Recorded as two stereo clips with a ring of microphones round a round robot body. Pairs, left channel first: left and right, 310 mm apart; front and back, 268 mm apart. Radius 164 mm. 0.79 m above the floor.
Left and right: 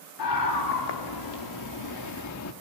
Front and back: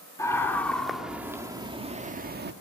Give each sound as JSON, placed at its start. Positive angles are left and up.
{"t": 0.2, "sound": "a scream", "azimuth_deg": 80, "distance_m": 2.5}